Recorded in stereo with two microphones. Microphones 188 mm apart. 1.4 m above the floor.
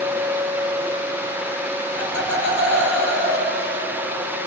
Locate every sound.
1.9 s laughter: 90° right, 6 m